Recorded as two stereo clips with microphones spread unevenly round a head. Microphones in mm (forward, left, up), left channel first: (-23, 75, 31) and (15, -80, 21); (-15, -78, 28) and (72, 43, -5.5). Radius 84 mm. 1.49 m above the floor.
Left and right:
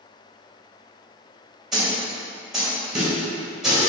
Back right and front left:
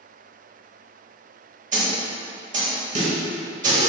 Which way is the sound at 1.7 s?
15° left.